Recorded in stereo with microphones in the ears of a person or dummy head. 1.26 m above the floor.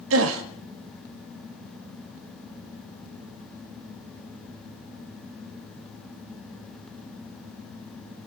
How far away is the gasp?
About 1.8 m.